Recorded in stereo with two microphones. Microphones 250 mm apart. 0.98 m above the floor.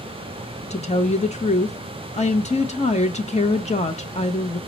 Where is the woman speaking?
25° left (ahead or behind), 0.6 m.